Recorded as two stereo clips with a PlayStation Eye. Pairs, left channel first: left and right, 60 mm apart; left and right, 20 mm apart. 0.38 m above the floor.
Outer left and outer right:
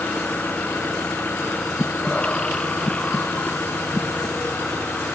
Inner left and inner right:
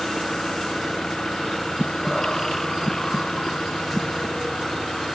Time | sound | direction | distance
0.0 | an engine running | 30° left (ahead or behind) | ?
1.8 | breathing | 15° left (ahead or behind) | ?